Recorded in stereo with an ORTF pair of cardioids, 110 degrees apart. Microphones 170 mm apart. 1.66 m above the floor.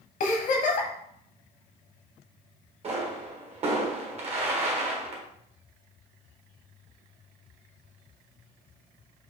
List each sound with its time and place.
0.2 s a giggle: 50° left, 1.0 m
2.8 s a pop: 40° right, 1.5 m